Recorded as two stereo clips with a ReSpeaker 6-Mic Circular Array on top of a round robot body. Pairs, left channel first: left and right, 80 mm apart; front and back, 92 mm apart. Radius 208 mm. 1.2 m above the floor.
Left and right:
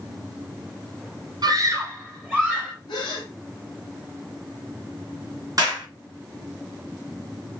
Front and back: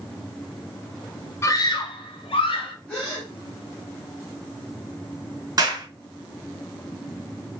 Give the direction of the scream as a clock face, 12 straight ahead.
2 o'clock.